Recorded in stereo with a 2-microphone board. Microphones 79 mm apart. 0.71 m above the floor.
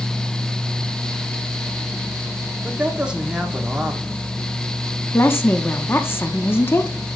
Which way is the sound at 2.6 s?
15° right (ahead or behind).